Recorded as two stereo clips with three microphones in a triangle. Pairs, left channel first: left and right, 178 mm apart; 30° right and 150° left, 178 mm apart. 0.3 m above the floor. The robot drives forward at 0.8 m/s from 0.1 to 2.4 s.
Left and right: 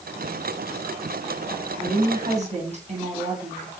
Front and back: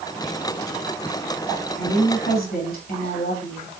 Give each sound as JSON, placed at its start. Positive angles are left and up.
{"t": 1.8, "sound": "a woman speaking", "azimuth_deg": -40, "distance_m": 3.0}